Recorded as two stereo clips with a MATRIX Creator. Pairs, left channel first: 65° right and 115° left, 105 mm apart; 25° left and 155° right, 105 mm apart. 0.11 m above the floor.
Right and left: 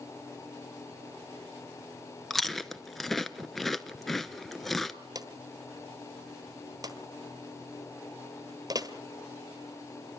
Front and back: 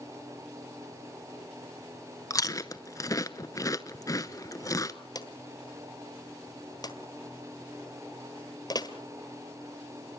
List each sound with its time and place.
2.3 s chewing: 20° left, 0.8 m
5.2 s a drawer: 65° left, 1.4 m